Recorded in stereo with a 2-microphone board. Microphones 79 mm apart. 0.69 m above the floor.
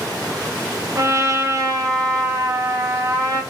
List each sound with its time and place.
0.9 s a trumpet: 45° right (ahead or behind), 0.6 m